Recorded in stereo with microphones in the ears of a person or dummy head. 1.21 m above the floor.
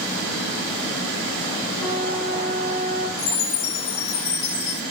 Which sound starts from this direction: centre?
A flute, at 1.8 s.